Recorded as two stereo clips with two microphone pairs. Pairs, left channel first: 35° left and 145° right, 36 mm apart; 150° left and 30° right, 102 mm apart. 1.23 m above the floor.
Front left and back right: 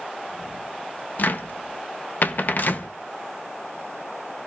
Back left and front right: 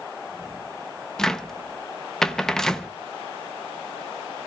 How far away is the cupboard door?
About 0.8 m.